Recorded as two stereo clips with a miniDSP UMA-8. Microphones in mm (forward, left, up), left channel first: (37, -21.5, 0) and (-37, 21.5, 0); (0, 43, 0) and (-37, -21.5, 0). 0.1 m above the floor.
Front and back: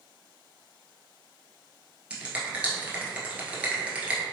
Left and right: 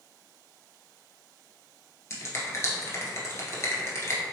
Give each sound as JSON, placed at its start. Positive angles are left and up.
{"t": 2.1, "sound": "a finger snap", "azimuth_deg": 85, "distance_m": 1.1}